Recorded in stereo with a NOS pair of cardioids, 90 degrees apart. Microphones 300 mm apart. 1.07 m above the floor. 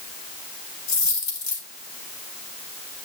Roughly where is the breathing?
No breathing in this recording.